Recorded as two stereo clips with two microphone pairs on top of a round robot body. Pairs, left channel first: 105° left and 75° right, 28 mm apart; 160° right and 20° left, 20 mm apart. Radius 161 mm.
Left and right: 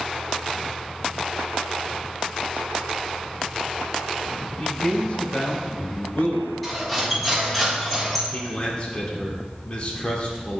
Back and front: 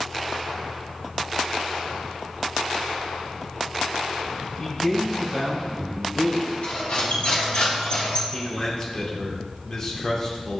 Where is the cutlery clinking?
175° right, 1.8 m.